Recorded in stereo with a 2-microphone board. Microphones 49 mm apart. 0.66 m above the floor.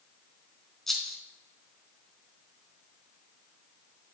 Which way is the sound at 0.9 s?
5° left (ahead or behind).